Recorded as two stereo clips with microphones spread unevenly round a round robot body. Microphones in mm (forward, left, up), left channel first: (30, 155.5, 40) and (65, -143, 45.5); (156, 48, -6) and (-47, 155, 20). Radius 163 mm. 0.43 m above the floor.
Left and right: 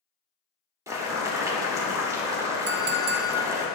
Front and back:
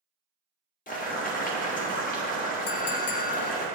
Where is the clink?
30° right, 0.6 m.